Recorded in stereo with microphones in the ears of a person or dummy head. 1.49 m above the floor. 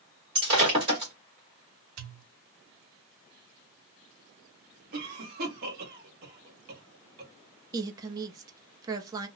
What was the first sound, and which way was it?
Breaking glass, 25° right (ahead or behind).